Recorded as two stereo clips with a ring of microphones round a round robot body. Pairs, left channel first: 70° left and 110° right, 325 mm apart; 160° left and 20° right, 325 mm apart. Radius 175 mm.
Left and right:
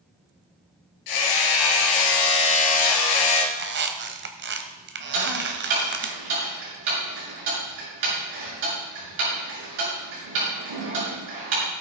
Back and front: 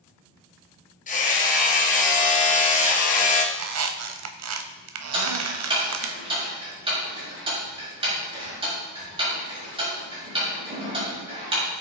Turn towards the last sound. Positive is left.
turn(degrees=-95)